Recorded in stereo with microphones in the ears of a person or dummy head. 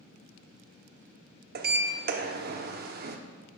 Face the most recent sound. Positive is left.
turn(degrees=-40)  # may be behind; listen again after turning